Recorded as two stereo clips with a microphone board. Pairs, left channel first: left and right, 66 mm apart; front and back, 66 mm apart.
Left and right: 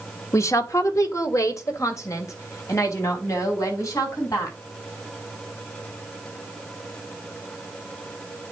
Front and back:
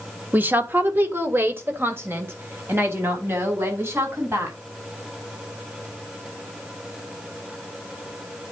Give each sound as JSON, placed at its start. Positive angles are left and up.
{"t": 0.3, "sound": "a woman speaking", "azimuth_deg": 120, "distance_m": 1.1}